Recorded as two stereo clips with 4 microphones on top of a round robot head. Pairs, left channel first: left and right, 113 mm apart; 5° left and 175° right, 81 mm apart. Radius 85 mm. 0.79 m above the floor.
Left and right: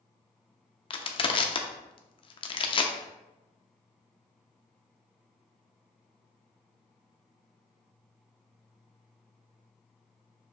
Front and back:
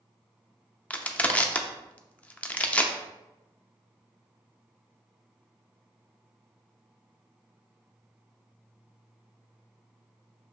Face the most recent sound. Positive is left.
turn(degrees=75)